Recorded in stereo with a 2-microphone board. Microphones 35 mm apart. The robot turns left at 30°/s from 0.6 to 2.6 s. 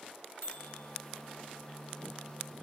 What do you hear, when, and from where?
0.4 s a microwave: 60° left (ahead or behind), 0.9 m; by 0.9 s 65° left (ahead or behind), 0.9 m